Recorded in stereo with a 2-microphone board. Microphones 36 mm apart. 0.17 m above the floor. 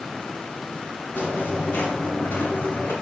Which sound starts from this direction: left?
Footsteps, at 1.1 s.